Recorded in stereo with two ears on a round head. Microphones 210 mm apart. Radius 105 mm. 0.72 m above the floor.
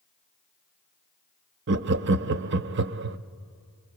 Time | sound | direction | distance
1.7 | laughter | 50° right (ahead or behind) | 0.7 m